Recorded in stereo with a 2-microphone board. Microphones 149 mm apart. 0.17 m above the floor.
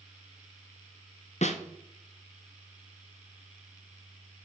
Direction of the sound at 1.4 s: 55° left (ahead or behind).